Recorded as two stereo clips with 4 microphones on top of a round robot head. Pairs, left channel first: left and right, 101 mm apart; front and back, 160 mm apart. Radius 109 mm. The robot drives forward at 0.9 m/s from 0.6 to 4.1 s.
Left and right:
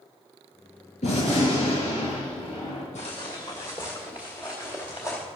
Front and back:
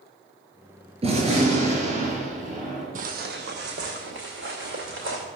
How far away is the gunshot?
About 5 m.